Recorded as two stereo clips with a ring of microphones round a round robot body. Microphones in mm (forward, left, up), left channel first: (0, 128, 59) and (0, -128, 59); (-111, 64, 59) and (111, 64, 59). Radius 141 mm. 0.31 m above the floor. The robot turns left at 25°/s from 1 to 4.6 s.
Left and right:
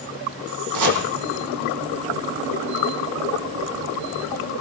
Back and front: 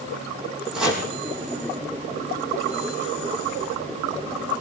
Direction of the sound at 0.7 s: 85° right.